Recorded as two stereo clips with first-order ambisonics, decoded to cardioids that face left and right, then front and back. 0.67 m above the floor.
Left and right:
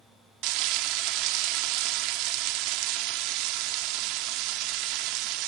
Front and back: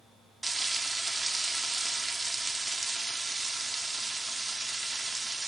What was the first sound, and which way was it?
Frying, 100° right.